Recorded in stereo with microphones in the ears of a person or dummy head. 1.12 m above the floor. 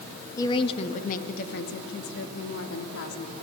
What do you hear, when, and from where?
0.4 s a woman speaking: 15° left (ahead or behind), 1.5 m; by 3.3 s 80° left, 3 m